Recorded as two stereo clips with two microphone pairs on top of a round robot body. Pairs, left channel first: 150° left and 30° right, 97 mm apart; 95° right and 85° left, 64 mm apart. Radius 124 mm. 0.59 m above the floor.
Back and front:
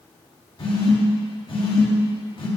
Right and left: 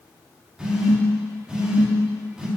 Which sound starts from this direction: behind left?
A phone buzzing, at 0.6 s.